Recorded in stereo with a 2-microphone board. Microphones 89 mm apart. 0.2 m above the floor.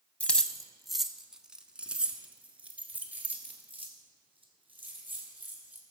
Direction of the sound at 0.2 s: 15° left (ahead or behind).